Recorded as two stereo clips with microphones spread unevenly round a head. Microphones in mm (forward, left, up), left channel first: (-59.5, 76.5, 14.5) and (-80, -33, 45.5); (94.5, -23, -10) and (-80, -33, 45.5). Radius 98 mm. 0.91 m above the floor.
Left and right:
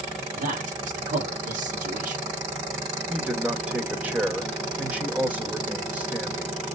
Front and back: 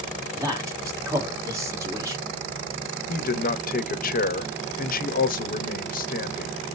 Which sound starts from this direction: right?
A man speaking, at 0.3 s.